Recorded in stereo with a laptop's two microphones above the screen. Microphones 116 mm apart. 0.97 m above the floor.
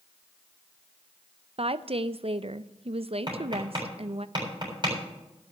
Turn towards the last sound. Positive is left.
turn(degrees=-40)  # may be behind; listen again after turning